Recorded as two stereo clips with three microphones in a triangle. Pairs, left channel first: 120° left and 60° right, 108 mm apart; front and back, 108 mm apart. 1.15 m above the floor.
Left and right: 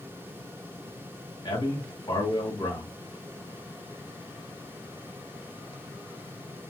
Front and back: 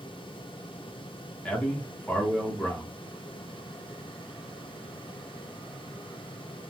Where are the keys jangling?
No keys jangling in this recording.